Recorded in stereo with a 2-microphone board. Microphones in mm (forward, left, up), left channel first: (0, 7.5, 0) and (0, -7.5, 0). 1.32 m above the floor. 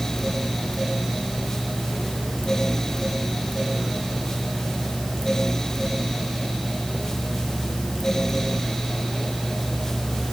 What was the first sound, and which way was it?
Only background noise.